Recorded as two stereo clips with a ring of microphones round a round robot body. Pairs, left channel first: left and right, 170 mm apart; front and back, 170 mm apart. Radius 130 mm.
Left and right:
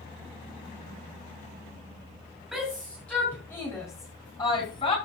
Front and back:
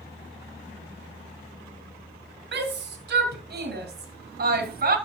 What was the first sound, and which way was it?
A shout, straight behind.